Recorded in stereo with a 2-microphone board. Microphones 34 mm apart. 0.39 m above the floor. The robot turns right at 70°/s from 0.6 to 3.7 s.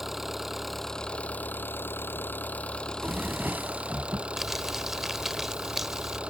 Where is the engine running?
5° right; by 6.3 s 150° right.